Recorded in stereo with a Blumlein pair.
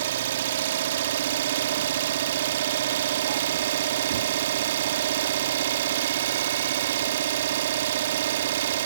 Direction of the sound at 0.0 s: 60° right.